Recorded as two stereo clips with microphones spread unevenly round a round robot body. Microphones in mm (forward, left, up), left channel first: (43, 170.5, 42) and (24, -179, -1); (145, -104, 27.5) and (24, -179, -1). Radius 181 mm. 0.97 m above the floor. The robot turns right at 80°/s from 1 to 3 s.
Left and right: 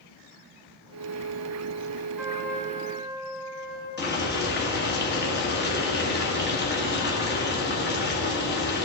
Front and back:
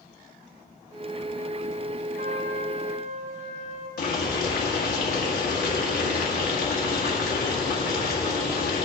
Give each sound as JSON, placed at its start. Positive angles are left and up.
{"t": 2.2, "sound": "a trumpet", "azimuth_deg": 175, "distance_m": 4.0}
{"t": 4.0, "sound": "boiling", "azimuth_deg": 25, "distance_m": 2.0}